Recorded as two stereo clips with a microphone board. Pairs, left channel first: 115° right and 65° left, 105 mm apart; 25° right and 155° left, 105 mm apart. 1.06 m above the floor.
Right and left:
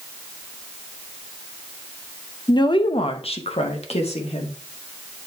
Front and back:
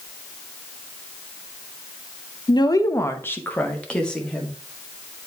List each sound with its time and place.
2.5 s a woman speaking: 65° right, 0.6 m; by 4.5 s 105° right, 1.7 m